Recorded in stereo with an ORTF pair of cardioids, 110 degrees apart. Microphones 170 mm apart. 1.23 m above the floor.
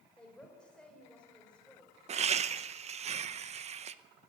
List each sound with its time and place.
0.2 s a woman speaking: 5° left, 5.5 m
2.1 s laughter: 40° right, 0.9 m